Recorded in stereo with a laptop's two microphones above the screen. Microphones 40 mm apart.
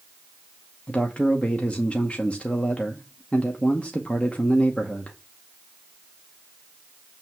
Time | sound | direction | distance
0.9 | a man speaking | 35° left (ahead or behind) | 0.8 m